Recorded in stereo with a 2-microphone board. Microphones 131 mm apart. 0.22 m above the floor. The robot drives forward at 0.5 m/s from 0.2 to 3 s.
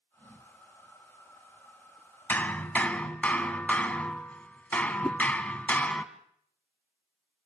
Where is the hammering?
15° left (ahead or behind), 1.2 m; by 6.0 s 10° left (ahead or behind), 1.4 m.